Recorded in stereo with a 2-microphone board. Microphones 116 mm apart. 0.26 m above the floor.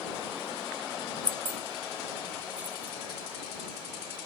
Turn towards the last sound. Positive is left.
turn(degrees=-15)  # may be behind; listen again after turning